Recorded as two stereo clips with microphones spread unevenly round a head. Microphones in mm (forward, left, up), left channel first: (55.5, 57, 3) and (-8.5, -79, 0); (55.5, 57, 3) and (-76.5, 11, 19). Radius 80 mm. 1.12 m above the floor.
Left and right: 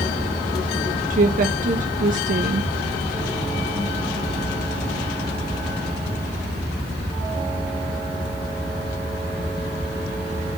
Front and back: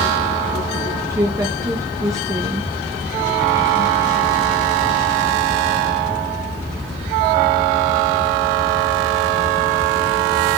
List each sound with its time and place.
1.1 s a woman speaking: 85° right, 1.2 m